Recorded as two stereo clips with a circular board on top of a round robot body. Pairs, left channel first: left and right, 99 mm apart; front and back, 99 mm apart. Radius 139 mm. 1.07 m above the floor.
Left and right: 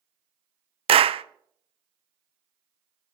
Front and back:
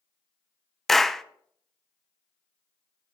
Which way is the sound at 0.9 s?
90° right.